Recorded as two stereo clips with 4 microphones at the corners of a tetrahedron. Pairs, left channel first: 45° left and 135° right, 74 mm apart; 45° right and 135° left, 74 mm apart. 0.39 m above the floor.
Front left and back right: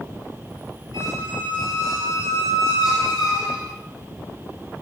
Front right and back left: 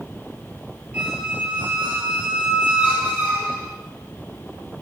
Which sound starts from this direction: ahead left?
A squeak, at 0.9 s.